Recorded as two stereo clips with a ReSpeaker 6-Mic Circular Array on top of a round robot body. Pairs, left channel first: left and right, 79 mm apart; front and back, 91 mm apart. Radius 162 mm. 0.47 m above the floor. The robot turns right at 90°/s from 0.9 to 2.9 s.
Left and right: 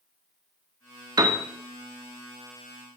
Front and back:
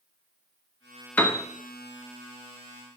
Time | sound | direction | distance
1.2 | a piano | 70° right | 1.5 m